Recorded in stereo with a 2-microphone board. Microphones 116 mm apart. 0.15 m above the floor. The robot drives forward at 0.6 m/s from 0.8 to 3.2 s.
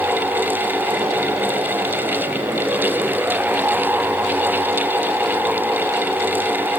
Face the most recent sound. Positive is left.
No sound to turn to.